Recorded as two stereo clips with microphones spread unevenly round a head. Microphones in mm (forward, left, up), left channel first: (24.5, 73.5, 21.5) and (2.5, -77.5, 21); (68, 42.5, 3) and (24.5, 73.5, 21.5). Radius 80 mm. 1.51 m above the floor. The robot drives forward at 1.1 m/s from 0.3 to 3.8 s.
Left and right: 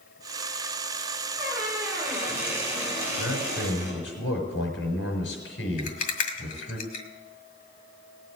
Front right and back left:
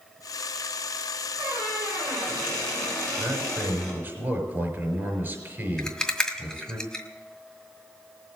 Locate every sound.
1.4 s a squeak: 170° right, 3 m; by 4.0 s 175° right, 5.5 m
3.2 s a man speaking: 90° left, 5.5 m; by 6.8 s 100° left, 5.5 m
5.8 s a rattle: 50° left, 2 m